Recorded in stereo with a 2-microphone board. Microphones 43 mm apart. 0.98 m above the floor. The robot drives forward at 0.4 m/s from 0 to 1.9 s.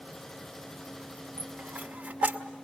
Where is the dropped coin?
40° right (ahead or behind), 1.4 m; by 2.4 s 35° right (ahead or behind), 1.6 m.